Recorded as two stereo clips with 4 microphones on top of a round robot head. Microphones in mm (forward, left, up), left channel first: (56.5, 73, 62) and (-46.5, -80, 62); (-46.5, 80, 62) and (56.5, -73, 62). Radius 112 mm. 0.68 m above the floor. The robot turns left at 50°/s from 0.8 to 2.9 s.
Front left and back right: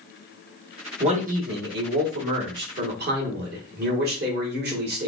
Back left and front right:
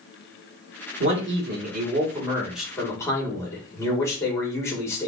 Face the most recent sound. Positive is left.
turn(degrees=-160)